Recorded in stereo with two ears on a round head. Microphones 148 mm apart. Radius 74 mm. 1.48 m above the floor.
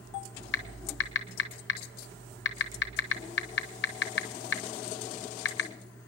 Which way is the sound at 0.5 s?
80° left.